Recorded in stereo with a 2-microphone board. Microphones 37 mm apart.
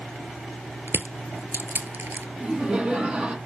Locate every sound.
0.9 s crushing: 70° right (ahead or behind), 0.6 m
2.4 s laughter: 30° right (ahead or behind), 1.4 m